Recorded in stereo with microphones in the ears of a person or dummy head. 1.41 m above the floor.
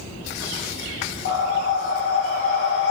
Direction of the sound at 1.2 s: 75° left (ahead or behind).